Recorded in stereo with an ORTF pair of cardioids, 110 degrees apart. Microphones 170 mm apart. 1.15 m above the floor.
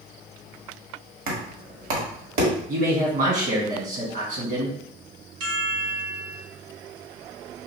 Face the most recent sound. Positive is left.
turn(degrees=-65)